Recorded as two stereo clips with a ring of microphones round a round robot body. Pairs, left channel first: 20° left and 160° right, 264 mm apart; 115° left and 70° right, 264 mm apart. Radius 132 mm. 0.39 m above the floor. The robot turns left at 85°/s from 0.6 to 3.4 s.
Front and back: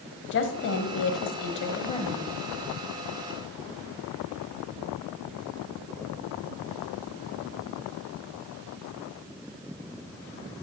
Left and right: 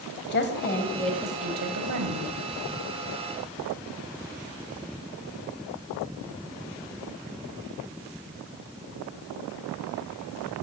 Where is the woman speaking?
65° left, 1.7 m; by 2.3 s 80° right, 1.7 m.